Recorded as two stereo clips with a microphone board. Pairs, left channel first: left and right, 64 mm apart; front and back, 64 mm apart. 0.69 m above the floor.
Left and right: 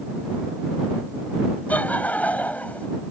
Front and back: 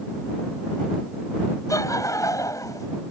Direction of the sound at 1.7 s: 25° left.